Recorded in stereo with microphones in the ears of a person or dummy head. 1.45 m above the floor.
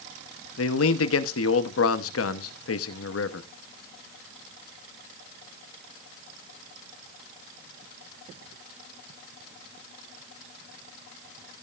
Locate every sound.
0.6 s a man speaking: 90° left, 1.0 m